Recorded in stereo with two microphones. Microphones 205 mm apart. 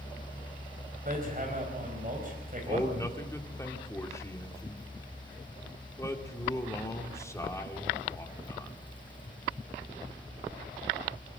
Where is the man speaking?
15° left (ahead or behind), 2.5 m.